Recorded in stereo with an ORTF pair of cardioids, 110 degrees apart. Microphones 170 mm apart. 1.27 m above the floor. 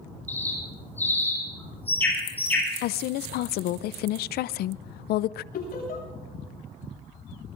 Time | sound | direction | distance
0.3 | a bird | 10° left | 9.5 m
2.8 | a woman speaking | 70° left | 0.5 m
5.5 | laughter | 60° left | 8.5 m